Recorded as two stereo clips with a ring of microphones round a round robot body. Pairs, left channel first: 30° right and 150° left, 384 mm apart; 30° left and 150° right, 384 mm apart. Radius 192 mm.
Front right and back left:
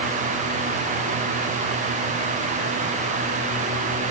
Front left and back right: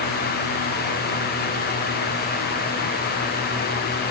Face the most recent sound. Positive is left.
No sound to turn to.